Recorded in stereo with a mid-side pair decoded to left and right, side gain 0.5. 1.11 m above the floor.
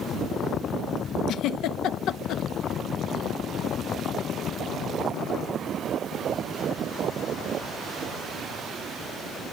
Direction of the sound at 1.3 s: 70° left.